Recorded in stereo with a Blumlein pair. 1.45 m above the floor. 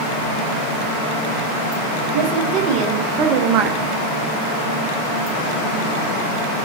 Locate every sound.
2.1 s a woman speaking: 35° right, 2 m; by 3.8 s 25° right, 1.0 m